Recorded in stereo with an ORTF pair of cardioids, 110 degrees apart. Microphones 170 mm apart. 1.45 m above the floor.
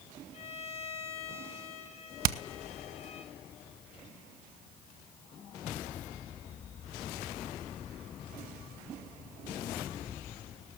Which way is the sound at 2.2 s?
60° right.